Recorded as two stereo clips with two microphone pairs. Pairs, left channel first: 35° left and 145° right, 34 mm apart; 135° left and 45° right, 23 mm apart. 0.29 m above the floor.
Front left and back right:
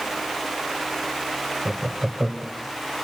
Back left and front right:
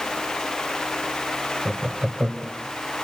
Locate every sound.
1.6 s laughter: 80° right, 1.0 m